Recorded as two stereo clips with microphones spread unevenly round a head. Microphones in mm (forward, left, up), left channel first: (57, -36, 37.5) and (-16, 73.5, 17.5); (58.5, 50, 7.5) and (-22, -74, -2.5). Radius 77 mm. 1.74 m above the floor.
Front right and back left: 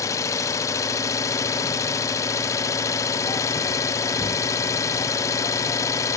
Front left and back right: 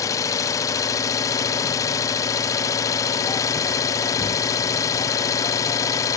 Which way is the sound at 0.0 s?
5° right.